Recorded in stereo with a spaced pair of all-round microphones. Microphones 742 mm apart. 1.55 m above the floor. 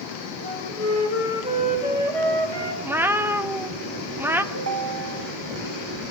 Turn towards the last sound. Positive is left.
turn(degrees=-20)  # may be behind; listen again after turning